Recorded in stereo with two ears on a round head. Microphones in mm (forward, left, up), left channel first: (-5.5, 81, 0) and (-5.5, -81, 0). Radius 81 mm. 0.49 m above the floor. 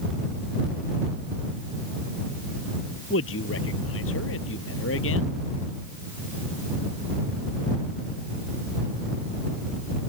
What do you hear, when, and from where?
3.1 s a man speaking: 80° left